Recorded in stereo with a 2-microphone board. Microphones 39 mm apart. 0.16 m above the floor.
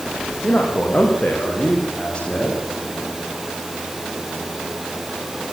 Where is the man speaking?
45° left (ahead or behind), 6.5 m; by 2.6 s 30° left (ahead or behind), 8 m.